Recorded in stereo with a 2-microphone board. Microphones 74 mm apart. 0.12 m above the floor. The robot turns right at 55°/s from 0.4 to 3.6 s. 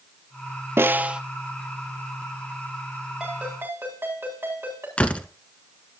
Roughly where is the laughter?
No laughter in this recording.